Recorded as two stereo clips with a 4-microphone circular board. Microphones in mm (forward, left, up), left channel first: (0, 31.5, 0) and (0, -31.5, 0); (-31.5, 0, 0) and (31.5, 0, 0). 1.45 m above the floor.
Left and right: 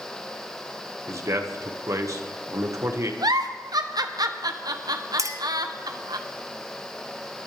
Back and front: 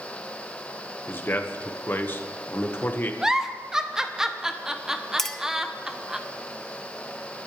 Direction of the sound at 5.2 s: 95° right.